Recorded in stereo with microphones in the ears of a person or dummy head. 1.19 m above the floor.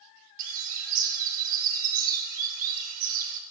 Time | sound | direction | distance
0.4 | a bird | 35° right (ahead or behind) | 2 m